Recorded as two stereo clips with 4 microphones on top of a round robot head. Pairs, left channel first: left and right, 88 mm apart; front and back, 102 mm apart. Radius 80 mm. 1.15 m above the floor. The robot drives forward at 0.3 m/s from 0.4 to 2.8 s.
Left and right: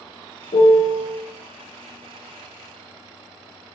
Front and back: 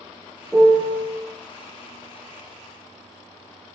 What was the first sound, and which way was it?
A piano, 95° left.